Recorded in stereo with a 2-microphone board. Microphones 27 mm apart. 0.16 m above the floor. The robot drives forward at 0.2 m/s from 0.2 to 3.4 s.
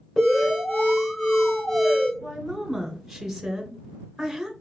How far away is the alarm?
About 3 m.